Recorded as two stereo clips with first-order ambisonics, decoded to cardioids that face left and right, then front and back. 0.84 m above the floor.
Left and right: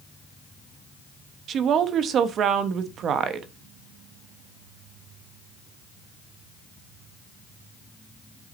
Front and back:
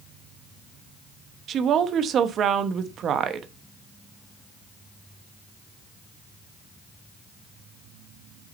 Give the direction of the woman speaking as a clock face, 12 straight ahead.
4 o'clock.